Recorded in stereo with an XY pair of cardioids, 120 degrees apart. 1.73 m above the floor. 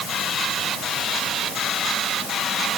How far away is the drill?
I don't hear a drill.